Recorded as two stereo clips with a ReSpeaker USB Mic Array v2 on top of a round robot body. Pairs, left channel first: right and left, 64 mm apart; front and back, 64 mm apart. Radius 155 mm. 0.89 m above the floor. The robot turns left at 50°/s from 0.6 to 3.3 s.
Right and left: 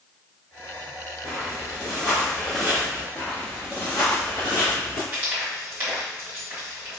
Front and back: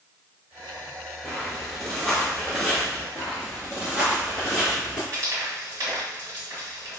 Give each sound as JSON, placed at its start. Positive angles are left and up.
{"t": 1.2, "sound": "footsteps", "azimuth_deg": 75, "distance_m": 1.1}
{"t": 3.1, "sound": "footsteps", "azimuth_deg": -140, "distance_m": 1.0}
{"t": 5.1, "sound": "frying", "azimuth_deg": 145, "distance_m": 1.9}